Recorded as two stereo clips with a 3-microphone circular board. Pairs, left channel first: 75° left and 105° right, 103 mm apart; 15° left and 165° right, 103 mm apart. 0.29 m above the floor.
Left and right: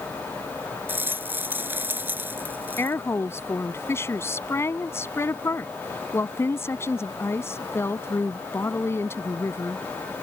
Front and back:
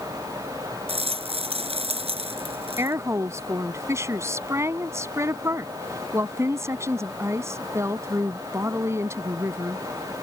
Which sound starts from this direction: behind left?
A woman speaking, at 2.8 s.